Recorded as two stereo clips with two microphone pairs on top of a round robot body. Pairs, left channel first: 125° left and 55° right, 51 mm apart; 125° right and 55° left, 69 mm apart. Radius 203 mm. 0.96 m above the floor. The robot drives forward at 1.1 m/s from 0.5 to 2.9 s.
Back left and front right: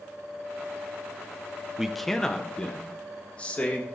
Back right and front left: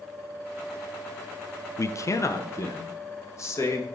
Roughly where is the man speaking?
Behind right.